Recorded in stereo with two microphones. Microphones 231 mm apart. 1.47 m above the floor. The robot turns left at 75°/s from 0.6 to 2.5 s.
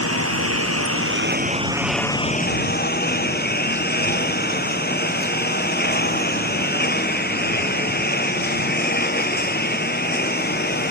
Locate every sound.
0.0 s a lawn mower: 80° right; by 10.9 s 135° left